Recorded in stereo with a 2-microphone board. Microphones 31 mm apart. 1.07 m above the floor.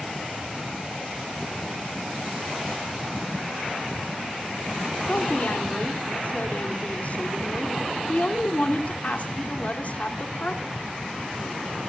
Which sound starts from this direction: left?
A woman speaking, at 5.1 s.